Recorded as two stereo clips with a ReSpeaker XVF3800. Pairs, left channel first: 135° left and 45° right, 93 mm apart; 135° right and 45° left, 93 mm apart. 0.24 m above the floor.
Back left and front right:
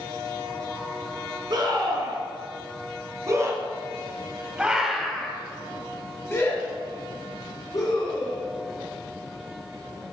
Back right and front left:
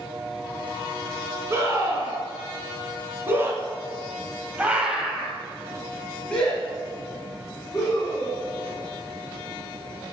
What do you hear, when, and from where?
1.5 s a scream: 15° right, 2.5 m; by 8.4 s 160° left, 2 m